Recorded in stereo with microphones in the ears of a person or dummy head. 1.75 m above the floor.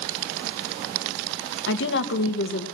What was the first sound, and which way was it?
A woman speaking, 75° left (ahead or behind).